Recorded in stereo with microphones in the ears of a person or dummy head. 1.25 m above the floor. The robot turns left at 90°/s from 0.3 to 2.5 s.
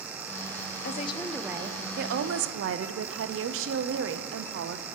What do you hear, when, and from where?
0.8 s a woman speaking: 55° left, 0.5 m; by 4.9 s 95° right, 0.5 m